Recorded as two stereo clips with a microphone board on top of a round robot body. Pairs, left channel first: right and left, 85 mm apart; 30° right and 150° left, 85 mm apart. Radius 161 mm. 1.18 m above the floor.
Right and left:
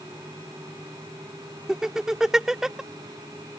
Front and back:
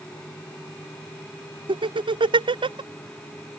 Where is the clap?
I don't hear a clap.